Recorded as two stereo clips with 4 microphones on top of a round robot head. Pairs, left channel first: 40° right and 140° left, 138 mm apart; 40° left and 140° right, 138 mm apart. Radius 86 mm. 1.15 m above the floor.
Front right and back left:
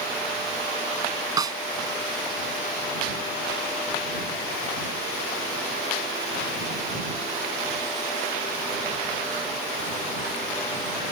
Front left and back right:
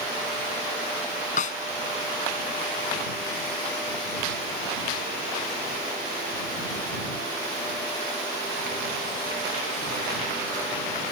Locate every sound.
1.4 s a snare drum: 75° left